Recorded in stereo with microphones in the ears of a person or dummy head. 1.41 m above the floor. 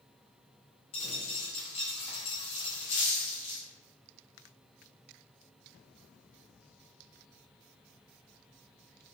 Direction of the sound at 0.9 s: 35° left (ahead or behind).